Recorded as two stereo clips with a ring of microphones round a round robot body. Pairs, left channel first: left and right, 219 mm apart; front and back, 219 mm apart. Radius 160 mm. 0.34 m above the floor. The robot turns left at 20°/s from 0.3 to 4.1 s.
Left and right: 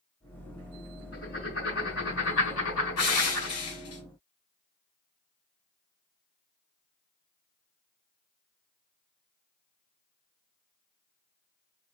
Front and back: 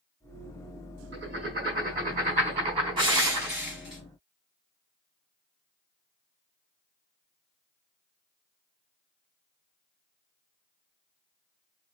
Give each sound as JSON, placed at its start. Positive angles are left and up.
{"t": 1.1, "sound": "writing", "azimuth_deg": 155, "distance_m": 3.5}
{"t": 3.0, "sound": "crushing", "azimuth_deg": 110, "distance_m": 3.0}